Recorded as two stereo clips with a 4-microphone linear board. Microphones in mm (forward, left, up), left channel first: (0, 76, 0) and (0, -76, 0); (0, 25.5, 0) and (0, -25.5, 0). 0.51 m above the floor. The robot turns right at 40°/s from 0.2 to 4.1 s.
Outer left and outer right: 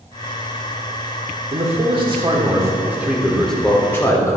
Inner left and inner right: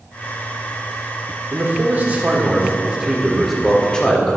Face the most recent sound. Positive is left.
turn(degrees=30)